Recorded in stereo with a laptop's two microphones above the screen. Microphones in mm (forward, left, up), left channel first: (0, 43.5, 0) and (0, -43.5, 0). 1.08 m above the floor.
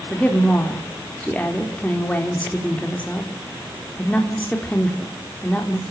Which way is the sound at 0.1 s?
15° left (ahead or behind).